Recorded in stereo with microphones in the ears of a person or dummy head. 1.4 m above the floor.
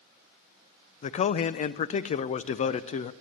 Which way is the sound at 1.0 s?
40° left (ahead or behind).